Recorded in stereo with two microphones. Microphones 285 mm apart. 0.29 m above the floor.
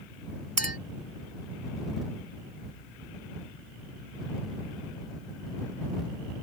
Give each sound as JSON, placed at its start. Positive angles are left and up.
{"t": 0.6, "sound": "a clink", "side_deg": -60}